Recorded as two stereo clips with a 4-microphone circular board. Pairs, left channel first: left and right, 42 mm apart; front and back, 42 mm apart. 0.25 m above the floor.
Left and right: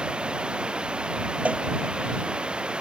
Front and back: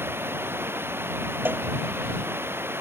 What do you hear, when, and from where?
0.0 s running water: 155° right
1.4 s a cowbell: 145° right